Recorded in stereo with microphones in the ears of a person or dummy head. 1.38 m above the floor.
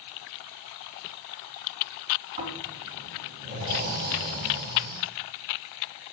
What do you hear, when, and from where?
2.4 s snoring: 45° right (ahead or behind), 3 m